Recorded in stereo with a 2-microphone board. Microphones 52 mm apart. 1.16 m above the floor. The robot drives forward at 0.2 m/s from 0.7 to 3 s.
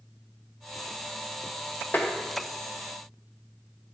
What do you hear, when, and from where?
1.9 s tapping: 35° left (ahead or behind), 0.8 m